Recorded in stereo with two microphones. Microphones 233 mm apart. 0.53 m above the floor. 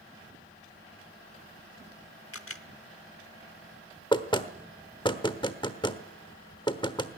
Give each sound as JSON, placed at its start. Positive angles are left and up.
{"t": 2.3, "sound": "a camera shutter", "side_deg": 70, "distance_m": 0.9}
{"t": 4.1, "sound": "knocking", "side_deg": 20, "distance_m": 1.2}